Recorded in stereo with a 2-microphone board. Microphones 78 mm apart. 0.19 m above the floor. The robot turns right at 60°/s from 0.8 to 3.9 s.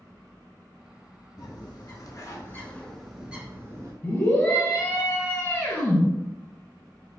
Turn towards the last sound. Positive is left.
turn(degrees=25)  # may be behind; listen again after turning